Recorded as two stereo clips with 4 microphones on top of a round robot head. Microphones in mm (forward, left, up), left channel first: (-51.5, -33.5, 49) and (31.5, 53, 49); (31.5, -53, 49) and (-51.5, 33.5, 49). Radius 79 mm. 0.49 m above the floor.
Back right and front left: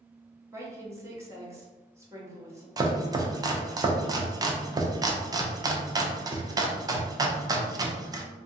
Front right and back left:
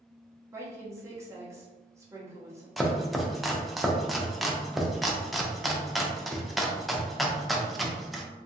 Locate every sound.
0.5 s a woman speaking: 90° left, 0.9 m
2.8 s chopping: 45° left, 0.5 m